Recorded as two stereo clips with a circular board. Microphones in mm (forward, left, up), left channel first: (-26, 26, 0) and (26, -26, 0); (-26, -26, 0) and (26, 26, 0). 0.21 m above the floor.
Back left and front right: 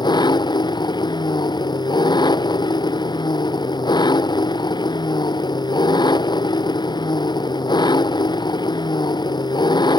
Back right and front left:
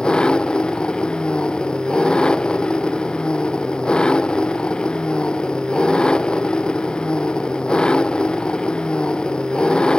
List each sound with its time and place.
0.0 s an engine running: 145° left